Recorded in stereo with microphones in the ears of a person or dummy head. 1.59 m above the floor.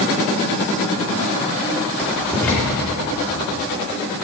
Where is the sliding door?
No sliding door in this recording.